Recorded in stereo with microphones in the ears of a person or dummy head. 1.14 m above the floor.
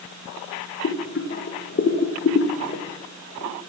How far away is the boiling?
About 0.6 m.